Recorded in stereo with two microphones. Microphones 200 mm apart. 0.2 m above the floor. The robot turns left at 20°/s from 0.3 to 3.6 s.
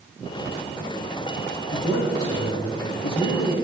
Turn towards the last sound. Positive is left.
turn(degrees=50)